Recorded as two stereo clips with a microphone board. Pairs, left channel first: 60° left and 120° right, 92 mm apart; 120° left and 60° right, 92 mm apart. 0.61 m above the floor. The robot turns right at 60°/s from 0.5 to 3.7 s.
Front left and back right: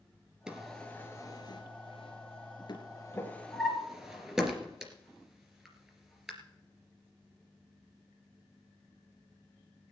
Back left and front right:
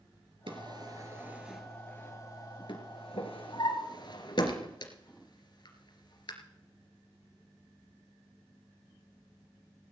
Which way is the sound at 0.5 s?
35° right.